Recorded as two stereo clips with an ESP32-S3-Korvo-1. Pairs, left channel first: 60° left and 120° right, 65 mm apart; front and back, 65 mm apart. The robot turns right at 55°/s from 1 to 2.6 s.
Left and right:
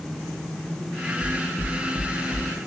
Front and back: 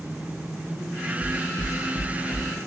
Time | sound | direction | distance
1.2 | footsteps | 10° right | 0.6 m